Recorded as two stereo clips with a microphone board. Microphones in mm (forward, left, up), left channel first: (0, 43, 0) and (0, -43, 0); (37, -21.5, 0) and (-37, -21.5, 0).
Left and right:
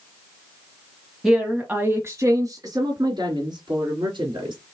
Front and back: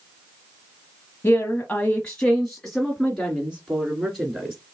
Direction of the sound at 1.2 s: 5° right.